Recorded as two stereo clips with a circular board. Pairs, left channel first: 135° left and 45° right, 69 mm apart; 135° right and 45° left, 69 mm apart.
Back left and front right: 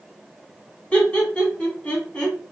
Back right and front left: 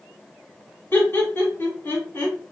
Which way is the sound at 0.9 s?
165° right.